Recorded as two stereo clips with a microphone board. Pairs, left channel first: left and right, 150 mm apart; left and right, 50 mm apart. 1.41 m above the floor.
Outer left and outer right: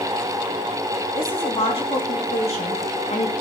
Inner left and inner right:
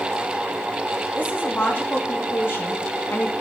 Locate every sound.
1.2 s a woman speaking: 40° left (ahead or behind), 3.5 m; by 3.3 s 50° left (ahead or behind), 2 m